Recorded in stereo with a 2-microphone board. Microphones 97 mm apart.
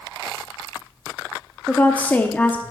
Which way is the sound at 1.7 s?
15° left (ahead or behind).